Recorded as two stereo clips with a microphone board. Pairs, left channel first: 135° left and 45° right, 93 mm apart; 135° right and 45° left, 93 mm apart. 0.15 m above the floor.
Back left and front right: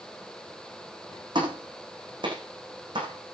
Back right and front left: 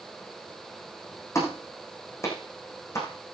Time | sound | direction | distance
1.4 | a clap | 75° right | 8.5 m